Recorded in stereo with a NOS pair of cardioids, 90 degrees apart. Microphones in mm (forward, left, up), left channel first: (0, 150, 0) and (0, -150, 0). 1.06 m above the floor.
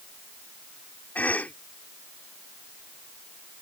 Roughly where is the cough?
Ahead.